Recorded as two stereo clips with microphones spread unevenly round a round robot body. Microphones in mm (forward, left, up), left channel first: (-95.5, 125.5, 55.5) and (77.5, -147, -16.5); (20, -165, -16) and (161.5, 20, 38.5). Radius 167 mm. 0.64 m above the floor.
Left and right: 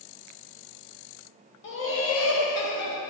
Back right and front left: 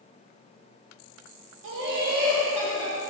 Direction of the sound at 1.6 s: 65° left.